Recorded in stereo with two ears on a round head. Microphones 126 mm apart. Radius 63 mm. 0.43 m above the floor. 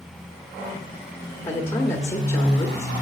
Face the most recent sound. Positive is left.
turn(degrees=15)  # may be behind; listen again after turning